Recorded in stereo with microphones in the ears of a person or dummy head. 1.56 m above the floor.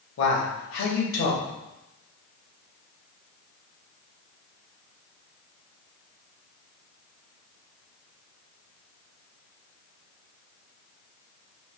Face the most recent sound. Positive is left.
turn(degrees=75)  # may be behind; listen again after turning